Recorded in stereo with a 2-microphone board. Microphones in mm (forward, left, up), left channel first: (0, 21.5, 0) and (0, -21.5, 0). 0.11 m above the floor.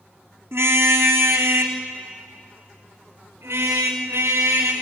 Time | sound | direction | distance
0.5 | a car horn | 70° right (ahead or behind) | 3 m